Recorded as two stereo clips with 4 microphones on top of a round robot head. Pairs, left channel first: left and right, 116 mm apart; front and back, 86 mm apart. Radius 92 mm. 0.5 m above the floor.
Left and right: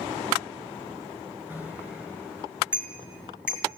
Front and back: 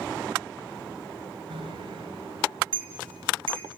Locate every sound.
1.5 s a bicycle bell: 165° right, 6 m; by 3.7 s 170° right, 7.5 m